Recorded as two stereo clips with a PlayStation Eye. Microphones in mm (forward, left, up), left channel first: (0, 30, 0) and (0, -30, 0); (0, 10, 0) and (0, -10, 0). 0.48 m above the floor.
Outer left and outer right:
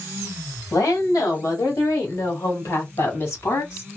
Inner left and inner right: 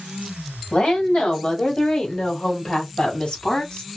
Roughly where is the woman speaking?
Left.